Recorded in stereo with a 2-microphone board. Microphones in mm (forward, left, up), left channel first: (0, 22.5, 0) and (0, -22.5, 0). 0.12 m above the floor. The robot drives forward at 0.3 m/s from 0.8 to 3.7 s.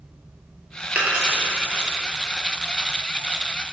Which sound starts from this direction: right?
A dropped coin, at 0.9 s.